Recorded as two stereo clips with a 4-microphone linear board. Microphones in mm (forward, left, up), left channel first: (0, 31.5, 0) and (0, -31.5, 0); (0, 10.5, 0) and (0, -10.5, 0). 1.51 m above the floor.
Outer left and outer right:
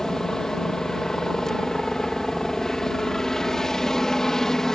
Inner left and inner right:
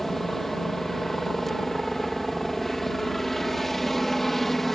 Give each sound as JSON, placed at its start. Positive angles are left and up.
{"t": 0.0, "sound": "a helicopter", "side_deg": 5}